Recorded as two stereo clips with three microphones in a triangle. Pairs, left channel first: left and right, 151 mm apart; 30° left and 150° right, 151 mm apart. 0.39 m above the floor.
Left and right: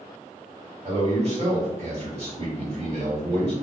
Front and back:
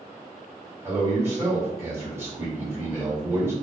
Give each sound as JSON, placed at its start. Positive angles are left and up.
{"t": 0.8, "sound": "a man speaking", "azimuth_deg": -85, "distance_m": 1.4}